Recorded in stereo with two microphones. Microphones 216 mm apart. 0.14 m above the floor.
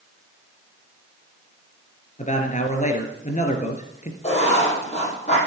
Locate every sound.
2.2 s a man speaking: 35° left (ahead or behind), 2.0 m
4.2 s writing: 30° left (ahead or behind), 5.5 m